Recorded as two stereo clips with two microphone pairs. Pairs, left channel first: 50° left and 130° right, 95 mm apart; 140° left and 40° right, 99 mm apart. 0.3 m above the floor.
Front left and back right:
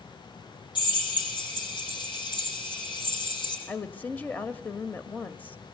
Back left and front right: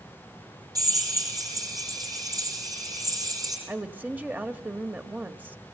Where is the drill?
15° left, 5.5 m.